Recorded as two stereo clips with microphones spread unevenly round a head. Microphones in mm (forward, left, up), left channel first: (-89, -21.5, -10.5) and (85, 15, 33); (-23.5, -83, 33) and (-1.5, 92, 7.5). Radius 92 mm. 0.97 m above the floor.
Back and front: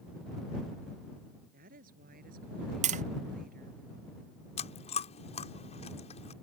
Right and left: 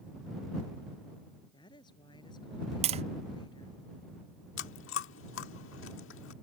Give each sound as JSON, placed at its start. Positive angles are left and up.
{"t": 1.5, "sound": "a woman speaking", "azimuth_deg": -30}
{"t": 2.8, "sound": "tapping", "azimuth_deg": 65}
{"t": 4.6, "sound": "chewing", "azimuth_deg": -110}